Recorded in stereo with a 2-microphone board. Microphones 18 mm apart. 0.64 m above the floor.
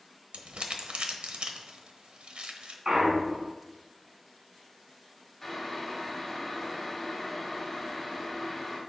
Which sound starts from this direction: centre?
Boiling, at 5.4 s.